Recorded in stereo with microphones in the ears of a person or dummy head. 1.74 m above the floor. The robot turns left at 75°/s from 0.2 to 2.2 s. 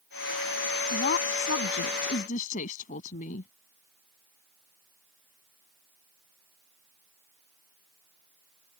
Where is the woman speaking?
145° left; by 3.5 s 50° left.